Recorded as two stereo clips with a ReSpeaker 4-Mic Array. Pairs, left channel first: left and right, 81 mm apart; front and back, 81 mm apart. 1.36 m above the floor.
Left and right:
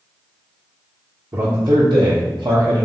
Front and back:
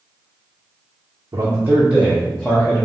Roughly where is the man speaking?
Behind right.